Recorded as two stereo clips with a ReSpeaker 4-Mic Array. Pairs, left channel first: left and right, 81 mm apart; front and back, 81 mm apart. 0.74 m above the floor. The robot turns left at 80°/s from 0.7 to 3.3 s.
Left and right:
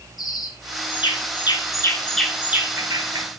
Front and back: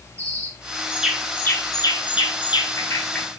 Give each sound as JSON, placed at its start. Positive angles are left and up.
{"t": 0.2, "sound": "a bird", "azimuth_deg": 120, "distance_m": 6.0}